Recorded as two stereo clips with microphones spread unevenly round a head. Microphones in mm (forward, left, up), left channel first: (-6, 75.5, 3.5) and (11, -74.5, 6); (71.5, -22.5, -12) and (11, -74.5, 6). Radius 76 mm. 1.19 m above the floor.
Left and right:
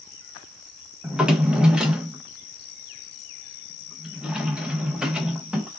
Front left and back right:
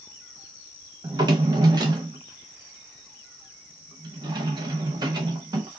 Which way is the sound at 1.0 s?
165° right.